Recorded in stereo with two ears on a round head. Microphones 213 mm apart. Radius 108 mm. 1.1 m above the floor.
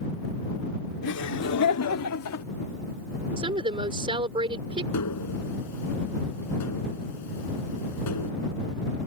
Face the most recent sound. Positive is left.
turn(degrees=90)